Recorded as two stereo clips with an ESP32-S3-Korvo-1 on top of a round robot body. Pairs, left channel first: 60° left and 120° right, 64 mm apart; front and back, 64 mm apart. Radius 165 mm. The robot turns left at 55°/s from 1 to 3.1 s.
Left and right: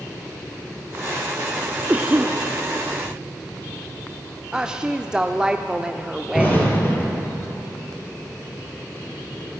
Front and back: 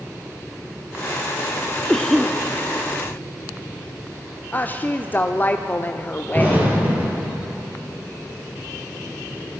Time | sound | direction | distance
1.9 | a cough | 65° right | 1.1 m
4.5 | a woman speaking | 50° right | 1.0 m
6.3 | an explosion | 115° left | 4 m